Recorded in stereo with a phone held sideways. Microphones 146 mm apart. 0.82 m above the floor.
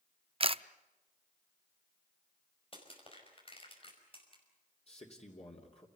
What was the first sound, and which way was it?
A camera shutter, 40° right (ahead or behind).